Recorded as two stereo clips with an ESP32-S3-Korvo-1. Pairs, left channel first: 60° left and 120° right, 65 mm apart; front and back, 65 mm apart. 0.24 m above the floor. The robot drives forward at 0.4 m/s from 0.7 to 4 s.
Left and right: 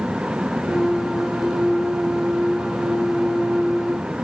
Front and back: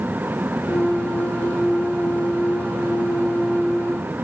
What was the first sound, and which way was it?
Only background noise.